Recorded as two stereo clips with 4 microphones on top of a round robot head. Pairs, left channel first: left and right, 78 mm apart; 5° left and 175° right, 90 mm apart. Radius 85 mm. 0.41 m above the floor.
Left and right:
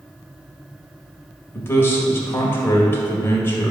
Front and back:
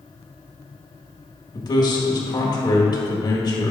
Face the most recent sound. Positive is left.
turn(degrees=35)